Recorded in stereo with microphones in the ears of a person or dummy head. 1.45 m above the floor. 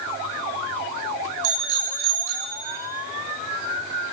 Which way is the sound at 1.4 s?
70° right (ahead or behind).